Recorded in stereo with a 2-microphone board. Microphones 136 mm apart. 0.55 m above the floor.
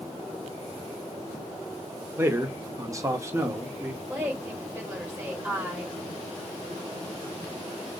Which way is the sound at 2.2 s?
20° right (ahead or behind).